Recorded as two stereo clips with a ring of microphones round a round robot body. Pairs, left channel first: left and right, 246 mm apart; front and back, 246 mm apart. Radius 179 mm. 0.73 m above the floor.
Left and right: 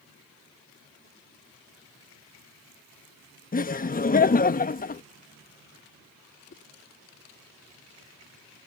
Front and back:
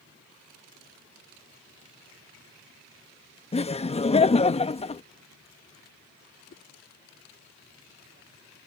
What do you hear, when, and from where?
3.5 s laughter: 55° left
6.5 s a whoosh: 45° left